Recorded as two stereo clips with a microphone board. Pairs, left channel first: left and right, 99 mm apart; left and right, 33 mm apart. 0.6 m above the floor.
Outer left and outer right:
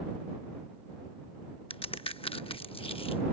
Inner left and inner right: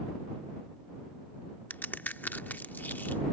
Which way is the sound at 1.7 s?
65° left (ahead or behind).